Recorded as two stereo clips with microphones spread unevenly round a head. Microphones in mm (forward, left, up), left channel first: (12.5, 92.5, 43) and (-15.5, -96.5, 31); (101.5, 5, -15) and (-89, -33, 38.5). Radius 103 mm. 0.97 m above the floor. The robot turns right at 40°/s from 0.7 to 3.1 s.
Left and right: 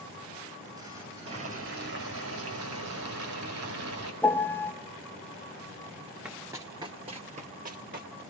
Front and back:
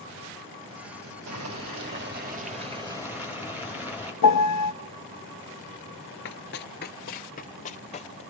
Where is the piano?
Straight ahead, 0.5 m.